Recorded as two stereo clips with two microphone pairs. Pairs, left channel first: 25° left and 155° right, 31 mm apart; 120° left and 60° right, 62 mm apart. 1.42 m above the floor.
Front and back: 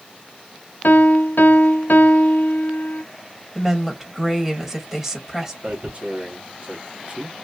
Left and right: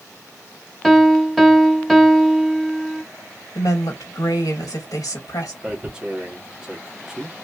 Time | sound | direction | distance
0.8 | a piano | 25° left | 0.6 m
3.5 | a woman speaking | 130° left | 1.6 m
5.6 | tearing paper | 135° right | 1.0 m